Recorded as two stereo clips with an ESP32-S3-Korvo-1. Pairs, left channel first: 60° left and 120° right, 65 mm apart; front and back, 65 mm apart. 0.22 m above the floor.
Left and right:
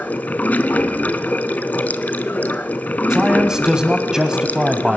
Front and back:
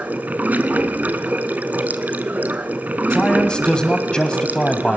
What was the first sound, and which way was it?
Running water, 120° left.